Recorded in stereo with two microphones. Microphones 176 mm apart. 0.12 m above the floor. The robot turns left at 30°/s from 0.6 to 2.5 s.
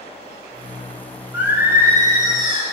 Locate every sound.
1.3 s singing: 15° right, 1.3 m; by 2.6 s 50° right, 1.3 m